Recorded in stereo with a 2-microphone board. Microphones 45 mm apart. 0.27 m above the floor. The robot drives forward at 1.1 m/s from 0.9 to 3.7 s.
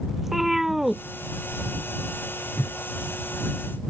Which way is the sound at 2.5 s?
65° left (ahead or behind).